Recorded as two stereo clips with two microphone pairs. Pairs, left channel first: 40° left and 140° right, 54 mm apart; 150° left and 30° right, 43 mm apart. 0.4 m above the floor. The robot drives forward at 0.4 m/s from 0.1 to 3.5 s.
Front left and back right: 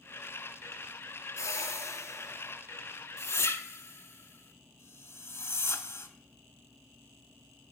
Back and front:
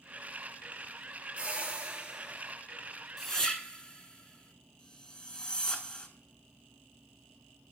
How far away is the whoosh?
About 1.2 m.